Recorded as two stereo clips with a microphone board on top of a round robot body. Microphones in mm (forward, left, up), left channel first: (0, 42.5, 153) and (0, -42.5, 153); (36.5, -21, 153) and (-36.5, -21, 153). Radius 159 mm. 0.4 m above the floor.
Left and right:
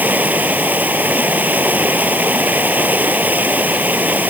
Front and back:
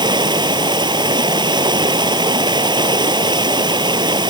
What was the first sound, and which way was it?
Running water, 160° right.